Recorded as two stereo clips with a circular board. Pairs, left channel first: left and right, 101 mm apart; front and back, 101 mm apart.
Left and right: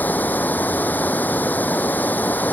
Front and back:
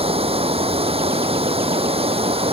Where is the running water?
165° left.